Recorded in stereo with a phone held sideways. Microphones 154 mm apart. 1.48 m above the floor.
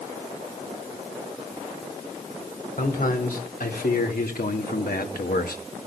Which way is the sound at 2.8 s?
65° left (ahead or behind).